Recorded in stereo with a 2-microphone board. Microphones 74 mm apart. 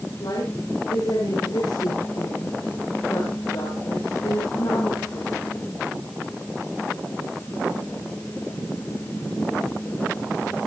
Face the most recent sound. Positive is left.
turn(degrees=70)  # may be behind; listen again after turning